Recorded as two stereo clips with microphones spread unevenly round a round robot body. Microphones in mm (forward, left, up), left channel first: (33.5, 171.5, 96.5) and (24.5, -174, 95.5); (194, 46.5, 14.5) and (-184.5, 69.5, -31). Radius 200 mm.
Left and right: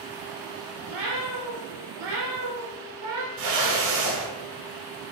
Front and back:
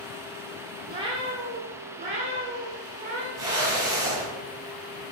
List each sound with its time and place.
0.9 s a cat meowing: 105° right, 3 m; by 3.3 s 110° right, 4.5 m
3.4 s a whoosh: 100° right, 6 m